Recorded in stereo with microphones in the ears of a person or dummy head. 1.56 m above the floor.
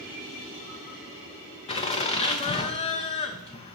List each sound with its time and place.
1.7 s laughter: 30° left (ahead or behind), 0.8 m